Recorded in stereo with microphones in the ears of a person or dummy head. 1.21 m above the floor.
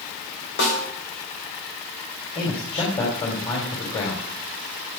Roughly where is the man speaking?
Left.